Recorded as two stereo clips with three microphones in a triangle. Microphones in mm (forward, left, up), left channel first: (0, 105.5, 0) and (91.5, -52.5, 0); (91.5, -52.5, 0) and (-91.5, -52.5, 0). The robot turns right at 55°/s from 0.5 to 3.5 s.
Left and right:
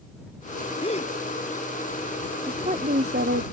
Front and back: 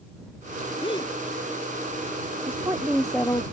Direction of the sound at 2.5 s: 120° right.